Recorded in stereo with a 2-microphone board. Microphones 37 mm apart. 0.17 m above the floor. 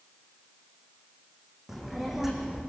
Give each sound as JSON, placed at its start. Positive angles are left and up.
{"t": 1.7, "sound": "a child speaking", "side_deg": -5, "distance_m": 5.5}